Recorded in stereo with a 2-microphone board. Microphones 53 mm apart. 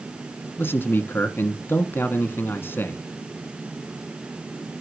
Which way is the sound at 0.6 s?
50° left (ahead or behind).